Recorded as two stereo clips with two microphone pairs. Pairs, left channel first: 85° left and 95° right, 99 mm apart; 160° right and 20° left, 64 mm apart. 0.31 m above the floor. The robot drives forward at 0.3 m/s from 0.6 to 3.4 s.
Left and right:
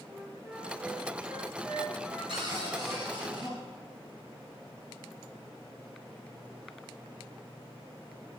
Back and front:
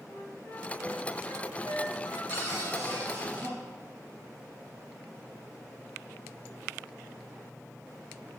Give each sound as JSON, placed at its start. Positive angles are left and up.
{"t": 0.1, "sound": "a flute", "azimuth_deg": -165, "distance_m": 1.1}
{"t": 2.3, "sound": "a cupboard door", "azimuth_deg": -120, "distance_m": 4.0}